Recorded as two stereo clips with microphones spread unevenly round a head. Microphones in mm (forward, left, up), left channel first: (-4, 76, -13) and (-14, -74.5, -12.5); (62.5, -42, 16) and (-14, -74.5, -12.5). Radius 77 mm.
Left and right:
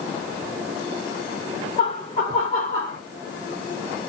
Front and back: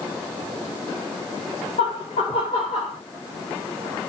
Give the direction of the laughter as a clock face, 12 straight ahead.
11 o'clock.